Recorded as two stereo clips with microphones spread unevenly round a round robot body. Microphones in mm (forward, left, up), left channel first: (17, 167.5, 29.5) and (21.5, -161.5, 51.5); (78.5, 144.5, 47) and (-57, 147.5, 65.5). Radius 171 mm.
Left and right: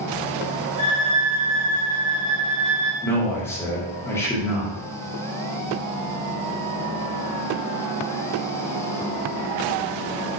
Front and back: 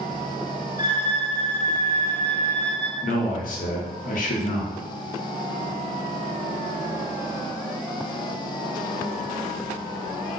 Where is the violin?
15° left, 1.4 m.